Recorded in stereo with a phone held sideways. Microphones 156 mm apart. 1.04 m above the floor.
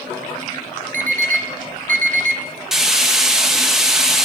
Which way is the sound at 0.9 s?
55° right (ahead or behind).